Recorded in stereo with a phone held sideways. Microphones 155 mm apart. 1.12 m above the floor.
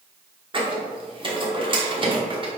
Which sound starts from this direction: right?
A squeak, at 0.5 s.